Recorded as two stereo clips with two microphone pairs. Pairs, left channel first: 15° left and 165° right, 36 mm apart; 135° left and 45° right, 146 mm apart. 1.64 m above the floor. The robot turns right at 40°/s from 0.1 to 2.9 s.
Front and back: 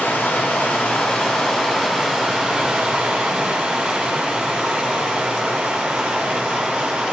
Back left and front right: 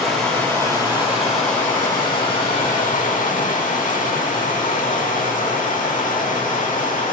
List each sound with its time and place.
0.0 s running water: 45° left, 7 m; by 7.1 s 160° left, 7 m